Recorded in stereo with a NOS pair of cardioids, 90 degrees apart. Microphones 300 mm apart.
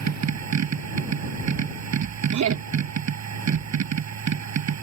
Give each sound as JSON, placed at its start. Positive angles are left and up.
{"t": 0.0, "sound": "a machine running", "azimuth_deg": -55}
{"t": 2.3, "sound": "laughter", "azimuth_deg": -60}